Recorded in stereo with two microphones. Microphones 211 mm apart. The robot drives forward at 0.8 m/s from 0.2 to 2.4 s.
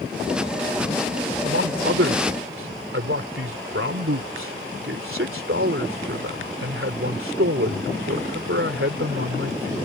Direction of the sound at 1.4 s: 75° right (ahead or behind).